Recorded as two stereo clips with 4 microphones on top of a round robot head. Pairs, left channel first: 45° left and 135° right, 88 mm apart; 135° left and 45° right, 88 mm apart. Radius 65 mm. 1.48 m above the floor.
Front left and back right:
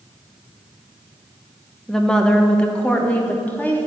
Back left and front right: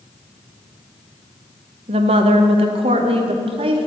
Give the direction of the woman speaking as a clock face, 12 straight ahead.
1 o'clock.